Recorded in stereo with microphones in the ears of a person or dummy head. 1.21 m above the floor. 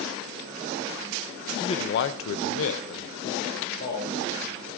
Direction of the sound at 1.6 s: 20° left (ahead or behind).